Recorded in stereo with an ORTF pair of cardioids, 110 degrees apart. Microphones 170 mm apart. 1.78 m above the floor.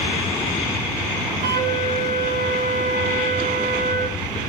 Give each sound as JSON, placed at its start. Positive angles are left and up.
{"t": 1.4, "sound": "a flute", "azimuth_deg": -60, "distance_m": 4.5}